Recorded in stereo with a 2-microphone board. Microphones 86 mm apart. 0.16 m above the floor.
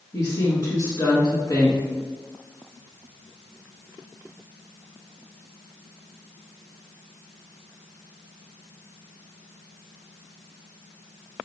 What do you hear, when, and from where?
0.1 s a woman speaking: 40° left (ahead or behind), 1.8 m